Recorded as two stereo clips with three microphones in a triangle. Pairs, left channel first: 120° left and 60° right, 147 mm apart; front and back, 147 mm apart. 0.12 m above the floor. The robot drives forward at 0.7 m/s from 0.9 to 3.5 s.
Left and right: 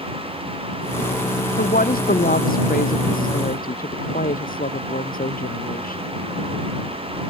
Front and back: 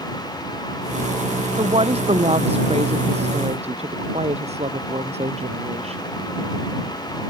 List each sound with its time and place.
1.6 s a woman speaking: 130° left; by 6.1 s 135° left